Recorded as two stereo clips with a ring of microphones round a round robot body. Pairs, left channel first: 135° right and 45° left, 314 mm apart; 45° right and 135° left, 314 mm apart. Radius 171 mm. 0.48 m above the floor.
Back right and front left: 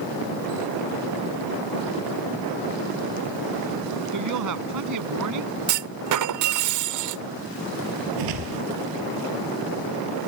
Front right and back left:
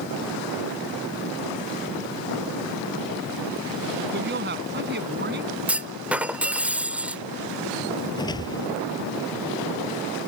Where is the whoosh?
35° left.